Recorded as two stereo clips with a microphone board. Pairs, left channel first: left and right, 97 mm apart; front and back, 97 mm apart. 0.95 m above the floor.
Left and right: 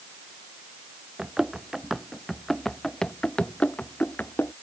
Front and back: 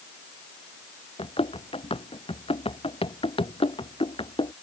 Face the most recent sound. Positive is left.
turn(degrees=20)